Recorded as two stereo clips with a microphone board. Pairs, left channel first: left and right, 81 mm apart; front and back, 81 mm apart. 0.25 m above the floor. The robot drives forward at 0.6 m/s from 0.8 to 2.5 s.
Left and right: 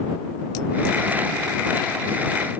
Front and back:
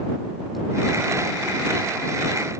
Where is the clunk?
I don't hear a clunk.